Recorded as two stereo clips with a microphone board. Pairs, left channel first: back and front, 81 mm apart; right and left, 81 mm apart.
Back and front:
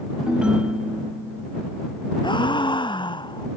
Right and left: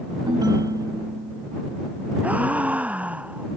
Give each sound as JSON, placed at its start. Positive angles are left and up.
{"t": 0.3, "sound": "a ringtone", "azimuth_deg": 75}
{"t": 2.2, "sound": "a gasp", "azimuth_deg": 165}